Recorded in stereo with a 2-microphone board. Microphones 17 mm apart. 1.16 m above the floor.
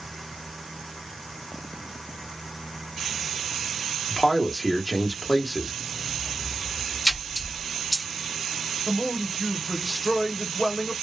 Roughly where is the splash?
Left.